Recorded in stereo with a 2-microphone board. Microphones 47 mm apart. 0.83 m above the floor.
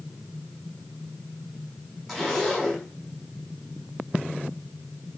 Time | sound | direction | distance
2.1 | a zipper | 5° right (ahead or behind) | 6.5 m